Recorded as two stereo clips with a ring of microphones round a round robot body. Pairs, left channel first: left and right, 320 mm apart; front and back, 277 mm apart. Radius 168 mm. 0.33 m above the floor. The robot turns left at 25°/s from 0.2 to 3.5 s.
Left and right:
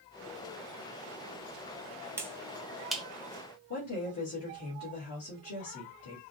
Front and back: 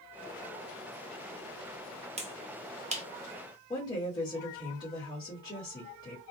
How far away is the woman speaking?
About 1.8 m.